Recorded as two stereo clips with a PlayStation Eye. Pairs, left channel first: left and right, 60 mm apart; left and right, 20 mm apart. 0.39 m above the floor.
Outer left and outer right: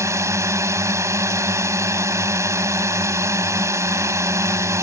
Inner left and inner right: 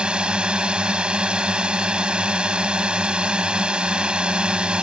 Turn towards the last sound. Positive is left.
turn(degrees=-55)  # may be behind; listen again after turning